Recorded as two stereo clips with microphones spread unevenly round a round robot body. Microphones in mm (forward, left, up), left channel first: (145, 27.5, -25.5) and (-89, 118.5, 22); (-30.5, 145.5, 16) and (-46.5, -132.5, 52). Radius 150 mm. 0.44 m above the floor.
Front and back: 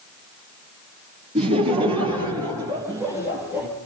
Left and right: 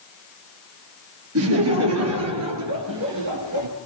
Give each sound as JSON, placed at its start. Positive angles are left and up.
{"t": 1.4, "sound": "laughter", "azimuth_deg": -130, "distance_m": 9.0}